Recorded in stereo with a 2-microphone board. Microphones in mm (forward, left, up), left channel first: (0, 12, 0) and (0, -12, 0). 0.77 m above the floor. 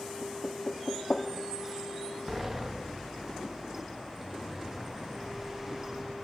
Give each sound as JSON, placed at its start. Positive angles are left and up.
{"t": 0.2, "sound": "knocking", "side_deg": 40, "distance_m": 0.8}
{"t": 2.3, "sound": "a sliding door", "side_deg": -10, "distance_m": 0.7}